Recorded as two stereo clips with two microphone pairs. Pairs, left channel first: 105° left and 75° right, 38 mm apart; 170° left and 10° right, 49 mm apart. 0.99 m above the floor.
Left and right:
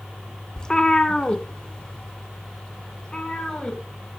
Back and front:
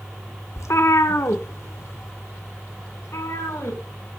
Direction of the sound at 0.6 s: 175° left.